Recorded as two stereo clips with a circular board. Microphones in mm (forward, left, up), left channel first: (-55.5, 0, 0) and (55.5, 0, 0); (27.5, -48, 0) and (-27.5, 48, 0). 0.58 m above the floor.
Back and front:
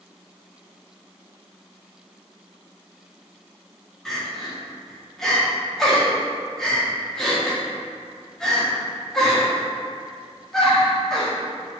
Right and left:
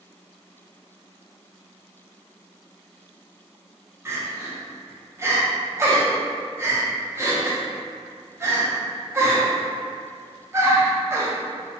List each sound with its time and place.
4.0 s crying: 100° left, 0.6 m